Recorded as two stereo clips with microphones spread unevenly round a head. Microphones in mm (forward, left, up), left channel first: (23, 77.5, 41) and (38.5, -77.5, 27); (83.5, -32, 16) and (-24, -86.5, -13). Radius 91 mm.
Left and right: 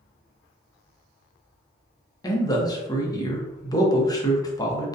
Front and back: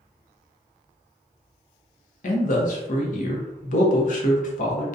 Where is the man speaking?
30° left, 0.6 m.